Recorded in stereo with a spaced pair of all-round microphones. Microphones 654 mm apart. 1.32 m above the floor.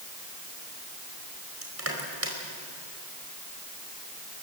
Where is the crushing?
20° right (ahead or behind), 4.5 m.